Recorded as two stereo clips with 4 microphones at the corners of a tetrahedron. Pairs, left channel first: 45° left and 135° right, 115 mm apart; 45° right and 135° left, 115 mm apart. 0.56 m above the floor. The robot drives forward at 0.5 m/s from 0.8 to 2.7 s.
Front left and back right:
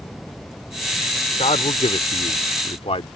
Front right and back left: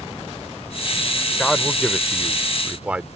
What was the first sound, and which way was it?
A man speaking, 40° left.